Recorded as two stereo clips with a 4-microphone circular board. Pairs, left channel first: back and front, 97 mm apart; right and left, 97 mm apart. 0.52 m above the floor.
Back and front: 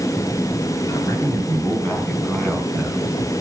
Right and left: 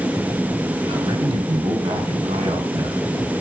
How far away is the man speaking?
About 3 m.